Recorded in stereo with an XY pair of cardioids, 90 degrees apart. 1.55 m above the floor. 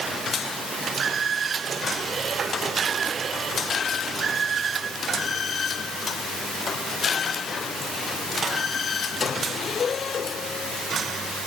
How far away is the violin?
No violin in this recording.